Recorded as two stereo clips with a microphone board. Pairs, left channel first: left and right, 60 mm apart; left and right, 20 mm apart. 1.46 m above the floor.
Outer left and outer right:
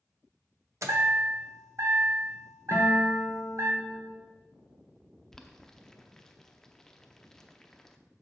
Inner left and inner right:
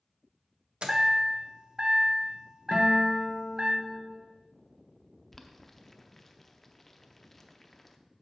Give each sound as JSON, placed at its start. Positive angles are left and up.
{"t": 0.8, "sound": "a chime", "side_deg": -60, "distance_m": 1.0}
{"t": 2.7, "sound": "a guitar", "side_deg": 35, "distance_m": 1.3}
{"t": 5.3, "sound": "boiling", "side_deg": 10, "distance_m": 0.6}